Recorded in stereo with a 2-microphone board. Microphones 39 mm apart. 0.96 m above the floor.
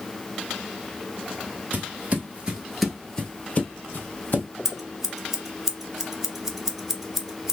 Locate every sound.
1.7 s footsteps: 45° right (ahead or behind), 1.3 m; by 4.5 s 50° left (ahead or behind), 1.9 m
4.7 s scissors: 10° right (ahead or behind), 0.7 m